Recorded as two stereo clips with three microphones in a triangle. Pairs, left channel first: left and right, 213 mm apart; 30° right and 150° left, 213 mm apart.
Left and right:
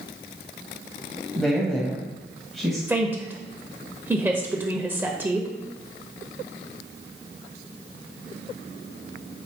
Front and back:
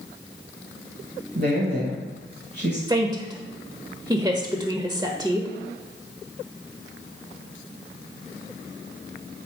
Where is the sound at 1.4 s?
Straight behind, 1.4 m.